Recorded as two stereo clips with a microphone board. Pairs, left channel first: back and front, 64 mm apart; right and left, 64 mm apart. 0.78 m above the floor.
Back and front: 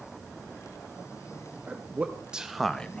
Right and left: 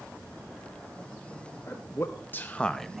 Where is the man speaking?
55° right, 0.9 m; by 3.0 s 165° left, 0.5 m.